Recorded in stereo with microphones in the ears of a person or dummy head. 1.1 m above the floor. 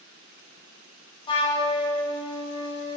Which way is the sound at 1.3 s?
15° left (ahead or behind).